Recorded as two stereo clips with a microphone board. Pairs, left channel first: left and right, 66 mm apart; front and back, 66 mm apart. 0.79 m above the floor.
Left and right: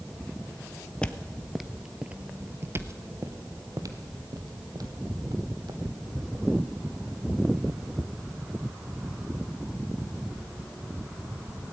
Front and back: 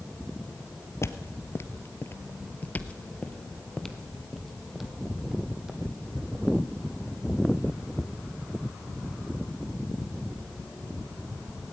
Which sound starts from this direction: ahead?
Footsteps, at 1.0 s.